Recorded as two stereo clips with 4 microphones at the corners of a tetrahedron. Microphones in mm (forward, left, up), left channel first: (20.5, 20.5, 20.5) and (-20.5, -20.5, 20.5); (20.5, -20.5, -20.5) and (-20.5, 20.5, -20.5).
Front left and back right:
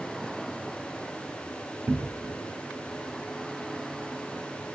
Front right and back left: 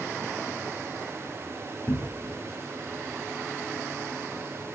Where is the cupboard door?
85° right, 0.5 m.